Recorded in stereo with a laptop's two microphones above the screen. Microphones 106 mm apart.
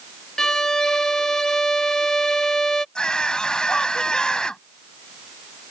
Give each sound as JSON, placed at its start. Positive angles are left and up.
{"t": 0.4, "sound": "a violin", "side_deg": 5}
{"t": 3.0, "sound": "a scream", "side_deg": 10}